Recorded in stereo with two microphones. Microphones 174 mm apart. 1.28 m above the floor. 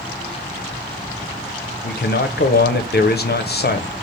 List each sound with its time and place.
1.8 s a man speaking: 60° left (ahead or behind), 0.5 m